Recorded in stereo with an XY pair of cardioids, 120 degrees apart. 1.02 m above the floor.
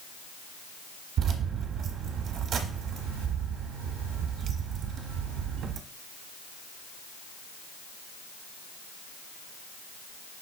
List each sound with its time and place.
1.2 s keys jangling: 60° right, 0.8 m